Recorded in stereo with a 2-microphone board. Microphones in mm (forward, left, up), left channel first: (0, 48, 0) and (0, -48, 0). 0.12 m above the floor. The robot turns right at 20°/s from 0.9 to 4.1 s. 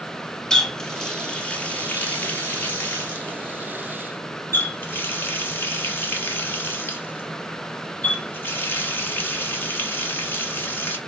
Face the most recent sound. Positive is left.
turn(degrees=25)  # may be behind; listen again after turning